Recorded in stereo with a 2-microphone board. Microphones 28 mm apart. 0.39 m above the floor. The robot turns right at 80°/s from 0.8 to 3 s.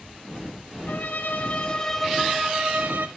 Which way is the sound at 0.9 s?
80° left.